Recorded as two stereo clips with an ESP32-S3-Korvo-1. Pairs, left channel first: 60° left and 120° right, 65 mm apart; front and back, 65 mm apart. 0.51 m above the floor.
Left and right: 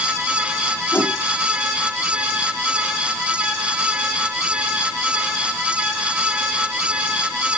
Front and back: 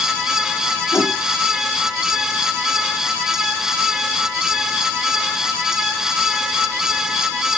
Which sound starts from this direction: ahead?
A whoosh, at 0.9 s.